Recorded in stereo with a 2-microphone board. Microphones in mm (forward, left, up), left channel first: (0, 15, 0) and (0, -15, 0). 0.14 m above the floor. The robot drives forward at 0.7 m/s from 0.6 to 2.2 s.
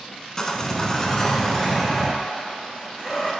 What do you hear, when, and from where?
0.4 s sawing: 20° left (ahead or behind), 0.5 m; by 3.3 s 10° left (ahead or behind), 1.2 m